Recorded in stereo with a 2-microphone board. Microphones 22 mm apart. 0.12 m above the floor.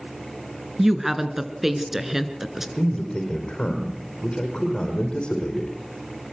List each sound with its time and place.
0.8 s a woman speaking: 15° right (ahead or behind), 1.7 m
2.8 s a man speaking: 45° left (ahead or behind), 5 m